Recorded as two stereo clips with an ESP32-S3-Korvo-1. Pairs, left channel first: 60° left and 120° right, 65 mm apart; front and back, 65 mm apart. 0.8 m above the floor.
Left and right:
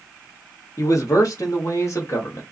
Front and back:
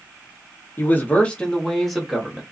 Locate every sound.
0.8 s a man speaking: 50° left, 0.9 m; by 2.4 s 100° left, 1.3 m